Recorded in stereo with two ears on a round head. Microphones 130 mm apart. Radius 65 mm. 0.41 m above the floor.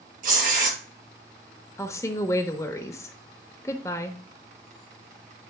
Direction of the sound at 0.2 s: 65° right (ahead or behind).